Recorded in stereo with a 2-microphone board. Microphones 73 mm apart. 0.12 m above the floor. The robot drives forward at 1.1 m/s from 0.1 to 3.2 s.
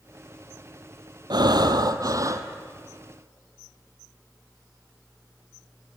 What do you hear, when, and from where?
1.3 s breathing: 70° right (ahead or behind), 1.2 m; by 2.5 s 45° right (ahead or behind), 1.7 m